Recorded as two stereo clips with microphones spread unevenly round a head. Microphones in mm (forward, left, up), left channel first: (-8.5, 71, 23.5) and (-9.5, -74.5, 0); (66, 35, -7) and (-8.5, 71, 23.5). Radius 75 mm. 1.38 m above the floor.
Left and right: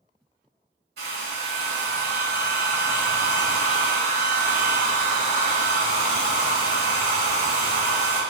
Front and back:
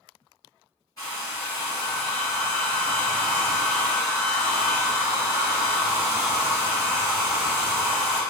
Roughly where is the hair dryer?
Right.